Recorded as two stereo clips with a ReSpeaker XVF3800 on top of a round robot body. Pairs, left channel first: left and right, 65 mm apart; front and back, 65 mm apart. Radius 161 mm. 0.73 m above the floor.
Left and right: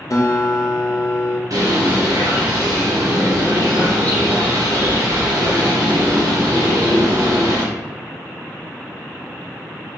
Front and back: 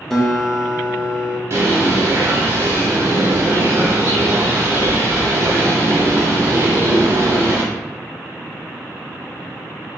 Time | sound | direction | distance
0.1 | a guitar | 85° left | 0.9 m
1.5 | a bird | 130° right | 0.7 m